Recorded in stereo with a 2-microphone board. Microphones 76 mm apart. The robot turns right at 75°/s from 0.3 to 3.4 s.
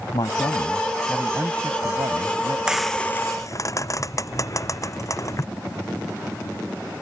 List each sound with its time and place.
0.1 s a man speaking: 115° left; by 2.6 s 70° right
2.7 s frying: 10° right (ahead or behind); by 5.5 s 45° left (ahead or behind)